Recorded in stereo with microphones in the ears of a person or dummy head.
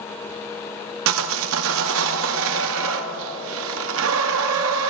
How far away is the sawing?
About 0.8 m.